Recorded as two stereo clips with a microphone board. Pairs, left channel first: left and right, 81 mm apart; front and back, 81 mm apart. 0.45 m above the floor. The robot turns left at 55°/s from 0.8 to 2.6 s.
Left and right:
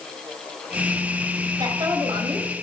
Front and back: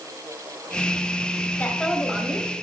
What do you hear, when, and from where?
1.6 s a woman speaking: 65° right, 2.5 m; by 2.5 s 120° right, 2.5 m